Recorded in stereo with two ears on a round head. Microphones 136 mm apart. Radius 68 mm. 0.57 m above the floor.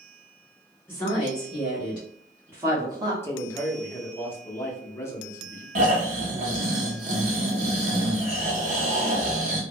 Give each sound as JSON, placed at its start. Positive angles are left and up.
{"t": 0.9, "sound": "a woman speaking", "side_deg": 5, "distance_m": 1.6}
{"t": 3.2, "sound": "a man speaking", "side_deg": 15, "distance_m": 0.7}
{"t": 5.8, "sound": "snoring", "side_deg": -50, "distance_m": 0.8}